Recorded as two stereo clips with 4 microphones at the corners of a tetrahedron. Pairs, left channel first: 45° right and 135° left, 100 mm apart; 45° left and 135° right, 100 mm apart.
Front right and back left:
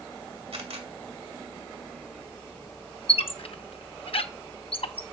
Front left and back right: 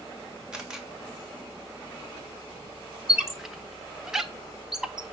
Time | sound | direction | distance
0.5 | a camera shutter | 140° left | 1.9 m
3.1 | a squeak | 50° right | 0.7 m